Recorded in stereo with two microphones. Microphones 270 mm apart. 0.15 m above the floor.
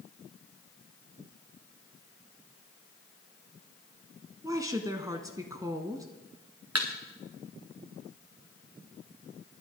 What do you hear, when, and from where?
4.4 s a woman speaking: 15° right (ahead or behind), 1.2 m
6.8 s a thud: 70° right (ahead or behind), 2 m